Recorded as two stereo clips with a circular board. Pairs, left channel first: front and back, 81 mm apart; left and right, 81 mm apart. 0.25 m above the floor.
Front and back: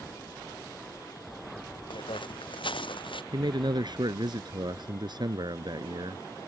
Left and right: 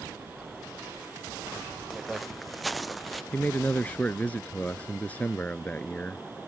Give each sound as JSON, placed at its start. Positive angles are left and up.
{"t": 1.9, "sound": "footsteps", "azimuth_deg": 0}
{"t": 3.3, "sound": "a man speaking", "azimuth_deg": 160}